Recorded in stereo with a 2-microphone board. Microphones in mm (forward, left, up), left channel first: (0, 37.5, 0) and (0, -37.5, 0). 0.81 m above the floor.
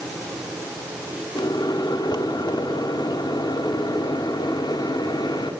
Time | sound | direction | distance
1.4 | a microwave | 70° left (ahead or behind) | 1.5 m